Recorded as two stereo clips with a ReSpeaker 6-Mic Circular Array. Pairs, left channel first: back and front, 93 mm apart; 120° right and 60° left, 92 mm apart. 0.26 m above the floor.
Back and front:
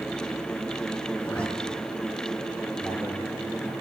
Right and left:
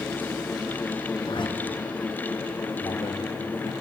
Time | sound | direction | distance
1.2 | a zipper | 100° right | 3.5 m
2.8 | a man speaking | 75° right | 5 m